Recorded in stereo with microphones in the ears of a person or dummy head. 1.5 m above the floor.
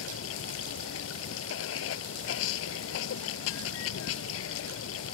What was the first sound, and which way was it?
Running water, 80° left.